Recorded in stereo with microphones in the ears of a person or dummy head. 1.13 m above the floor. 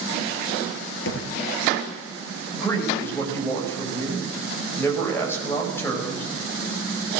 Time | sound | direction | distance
1.1 | a thud | 75° left (ahead or behind) | 5.5 m
2.5 | a man speaking | 15° left (ahead or behind) | 5.5 m